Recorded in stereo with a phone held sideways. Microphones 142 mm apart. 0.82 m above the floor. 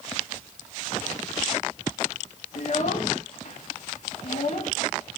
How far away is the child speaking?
About 1.0 m.